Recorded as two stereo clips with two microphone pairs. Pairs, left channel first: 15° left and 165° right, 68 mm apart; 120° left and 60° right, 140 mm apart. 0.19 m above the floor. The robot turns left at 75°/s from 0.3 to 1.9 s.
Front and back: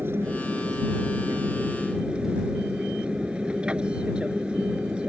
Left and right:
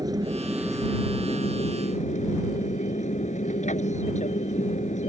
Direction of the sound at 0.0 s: 115° right.